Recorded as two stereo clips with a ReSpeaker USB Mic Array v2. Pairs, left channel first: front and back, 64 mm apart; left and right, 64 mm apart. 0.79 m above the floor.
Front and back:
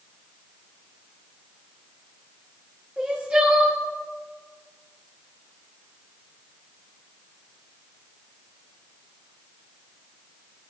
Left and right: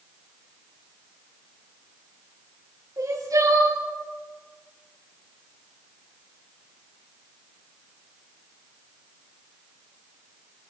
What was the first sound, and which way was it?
Crying, 110° right.